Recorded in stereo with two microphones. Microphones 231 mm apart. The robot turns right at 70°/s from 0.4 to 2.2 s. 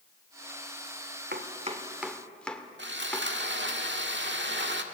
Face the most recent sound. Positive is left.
turn(degrees=-50)  # may be behind; listen again after turning